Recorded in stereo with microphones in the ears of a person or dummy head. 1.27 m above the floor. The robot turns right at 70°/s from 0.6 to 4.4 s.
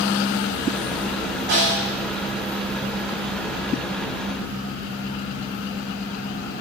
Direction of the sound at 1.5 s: 55° right (ahead or behind).